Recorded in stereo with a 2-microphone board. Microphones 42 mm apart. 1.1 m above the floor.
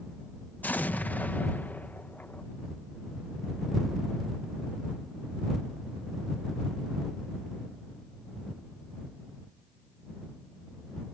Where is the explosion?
45° left (ahead or behind).